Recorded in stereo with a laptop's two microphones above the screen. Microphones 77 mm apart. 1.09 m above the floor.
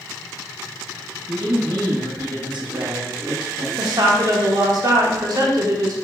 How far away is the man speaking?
About 1.0 m.